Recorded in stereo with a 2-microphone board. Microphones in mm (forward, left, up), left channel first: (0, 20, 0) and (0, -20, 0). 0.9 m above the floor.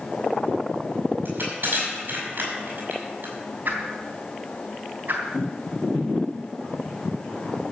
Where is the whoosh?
50° right (ahead or behind), 3.5 m.